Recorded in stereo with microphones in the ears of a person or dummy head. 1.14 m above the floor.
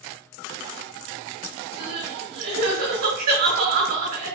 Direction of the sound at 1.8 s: 55° right (ahead or behind).